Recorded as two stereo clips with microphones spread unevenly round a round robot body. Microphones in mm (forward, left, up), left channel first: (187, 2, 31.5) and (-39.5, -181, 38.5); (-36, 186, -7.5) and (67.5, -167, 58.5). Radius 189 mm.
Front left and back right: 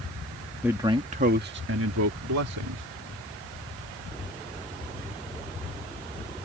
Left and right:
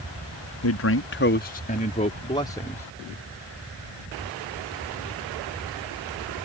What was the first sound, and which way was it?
A man speaking, 135° left.